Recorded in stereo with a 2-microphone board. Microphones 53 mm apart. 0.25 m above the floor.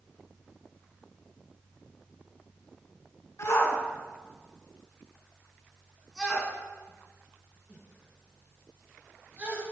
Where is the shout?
55° left (ahead or behind), 3 m; by 9.6 s 30° right (ahead or behind), 5.5 m.